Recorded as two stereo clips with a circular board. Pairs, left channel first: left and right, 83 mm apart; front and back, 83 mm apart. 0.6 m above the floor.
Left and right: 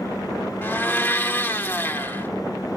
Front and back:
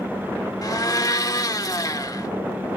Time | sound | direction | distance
0.6 | a blender | 30° left | 1.2 m